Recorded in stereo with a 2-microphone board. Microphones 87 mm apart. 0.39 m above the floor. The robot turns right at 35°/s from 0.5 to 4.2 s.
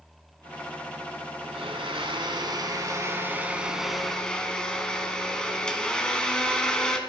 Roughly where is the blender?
Right.